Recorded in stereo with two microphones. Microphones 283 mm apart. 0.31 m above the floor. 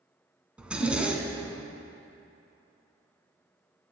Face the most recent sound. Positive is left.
turn(degrees=-5)  # may be behind; listen again after turning